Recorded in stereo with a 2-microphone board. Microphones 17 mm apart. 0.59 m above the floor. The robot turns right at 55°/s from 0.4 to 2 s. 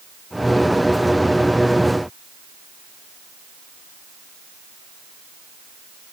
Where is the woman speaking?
I don't hear a woman speaking.